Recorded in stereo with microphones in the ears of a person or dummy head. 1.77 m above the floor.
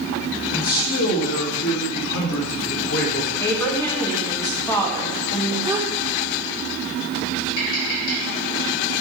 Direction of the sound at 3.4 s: 10° left (ahead or behind).